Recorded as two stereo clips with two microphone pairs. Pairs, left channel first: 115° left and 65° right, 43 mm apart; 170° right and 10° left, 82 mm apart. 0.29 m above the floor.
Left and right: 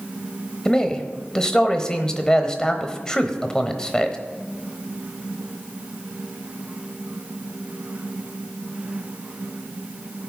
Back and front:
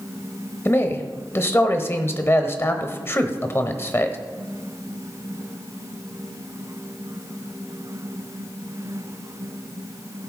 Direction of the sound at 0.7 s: 175° left.